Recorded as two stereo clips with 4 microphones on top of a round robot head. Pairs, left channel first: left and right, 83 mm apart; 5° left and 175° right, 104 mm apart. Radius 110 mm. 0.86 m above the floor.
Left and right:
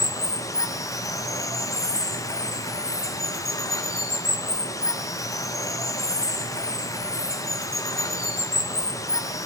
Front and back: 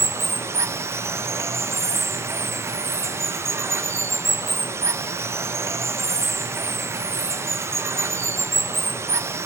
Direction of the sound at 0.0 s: 125° left.